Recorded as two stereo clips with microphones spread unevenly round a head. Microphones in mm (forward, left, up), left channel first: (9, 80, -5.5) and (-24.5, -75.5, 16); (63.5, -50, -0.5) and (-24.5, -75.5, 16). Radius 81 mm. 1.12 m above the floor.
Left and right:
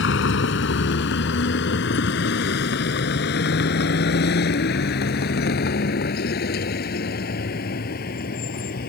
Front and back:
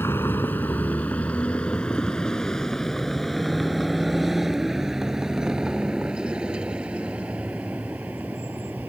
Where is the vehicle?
95° left; by 8.9 s 115° left.